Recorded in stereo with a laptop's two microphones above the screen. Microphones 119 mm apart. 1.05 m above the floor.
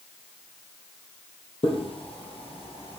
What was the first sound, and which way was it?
Footsteps, 50° left (ahead or behind).